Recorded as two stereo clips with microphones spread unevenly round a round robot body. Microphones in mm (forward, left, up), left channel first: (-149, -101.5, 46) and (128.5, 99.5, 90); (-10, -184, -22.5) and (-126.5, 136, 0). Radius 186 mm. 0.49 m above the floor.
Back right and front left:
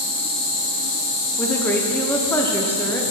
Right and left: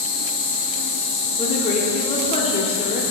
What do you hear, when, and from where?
0.0 s an insect: 105° right, 1.9 m
1.4 s a woman speaking: 90° right, 0.7 m